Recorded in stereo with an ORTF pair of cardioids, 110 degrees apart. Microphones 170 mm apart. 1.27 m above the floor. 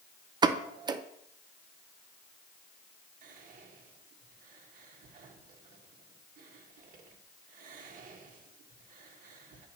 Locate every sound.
0.4 s a pop: 25° right, 0.5 m
3.2 s whispering: 55° right, 1.5 m